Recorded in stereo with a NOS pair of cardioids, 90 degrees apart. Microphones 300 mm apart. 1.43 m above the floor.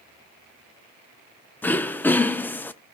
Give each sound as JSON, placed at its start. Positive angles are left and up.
{"t": 1.6, "sound": "throat clearing", "azimuth_deg": 5, "distance_m": 0.8}